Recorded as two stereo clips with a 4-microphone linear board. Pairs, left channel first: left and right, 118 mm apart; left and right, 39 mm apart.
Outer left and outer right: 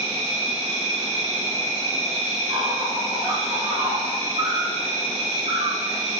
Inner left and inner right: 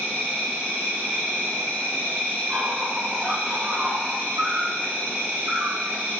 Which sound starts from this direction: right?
An insect, at 0.0 s.